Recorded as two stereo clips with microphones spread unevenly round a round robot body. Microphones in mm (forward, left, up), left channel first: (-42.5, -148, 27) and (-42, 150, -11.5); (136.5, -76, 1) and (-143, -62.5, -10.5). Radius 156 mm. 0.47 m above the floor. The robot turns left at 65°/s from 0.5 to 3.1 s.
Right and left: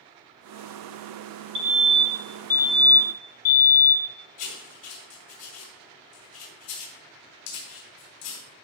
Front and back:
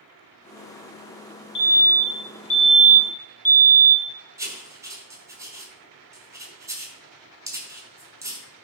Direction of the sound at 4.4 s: 105° right.